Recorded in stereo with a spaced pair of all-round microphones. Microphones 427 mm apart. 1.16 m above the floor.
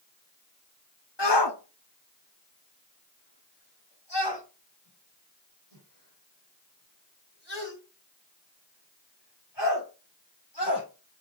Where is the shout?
85° left, 1.4 m.